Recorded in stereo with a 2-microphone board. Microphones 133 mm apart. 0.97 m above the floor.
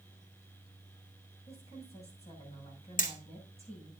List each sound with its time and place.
1.5 s a woman speaking: 50° left (ahead or behind), 7 m
3.0 s hammering: 80° left, 1.6 m